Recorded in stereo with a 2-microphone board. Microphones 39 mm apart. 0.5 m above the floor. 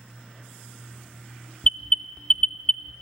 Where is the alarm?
25° left (ahead or behind), 0.6 m.